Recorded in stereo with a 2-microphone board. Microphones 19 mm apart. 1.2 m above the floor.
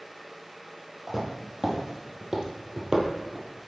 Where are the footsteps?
20° right (ahead or behind), 1.9 m; by 3.7 s 45° right (ahead or behind), 1.8 m.